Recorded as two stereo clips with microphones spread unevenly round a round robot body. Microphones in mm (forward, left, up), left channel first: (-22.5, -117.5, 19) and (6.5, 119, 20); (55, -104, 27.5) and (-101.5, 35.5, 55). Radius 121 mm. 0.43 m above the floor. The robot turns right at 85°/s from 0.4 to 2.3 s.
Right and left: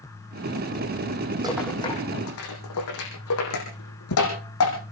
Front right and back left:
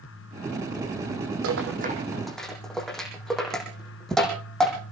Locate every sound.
1.4 s a rattle: 155° left, 6.5 m; by 4.8 s 130° right, 6.5 m